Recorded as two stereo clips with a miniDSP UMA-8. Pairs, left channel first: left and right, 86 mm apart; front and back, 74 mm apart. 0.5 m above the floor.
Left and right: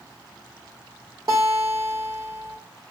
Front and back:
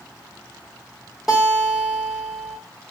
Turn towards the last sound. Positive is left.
turn(degrees=-95)